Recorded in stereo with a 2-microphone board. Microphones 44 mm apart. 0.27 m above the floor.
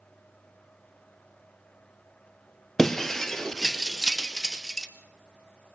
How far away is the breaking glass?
About 1.8 m.